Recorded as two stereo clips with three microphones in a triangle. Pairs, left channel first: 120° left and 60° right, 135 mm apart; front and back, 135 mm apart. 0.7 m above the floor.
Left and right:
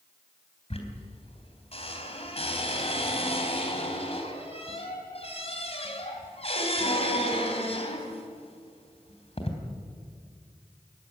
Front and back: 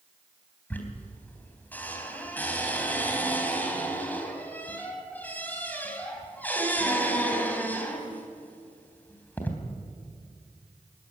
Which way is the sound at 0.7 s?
80° left.